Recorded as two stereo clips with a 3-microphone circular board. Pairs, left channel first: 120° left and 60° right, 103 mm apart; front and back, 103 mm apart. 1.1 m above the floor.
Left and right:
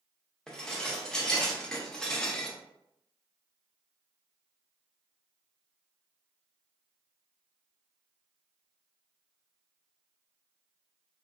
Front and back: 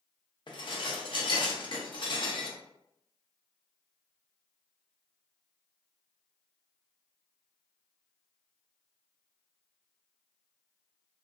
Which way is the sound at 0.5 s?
35° left.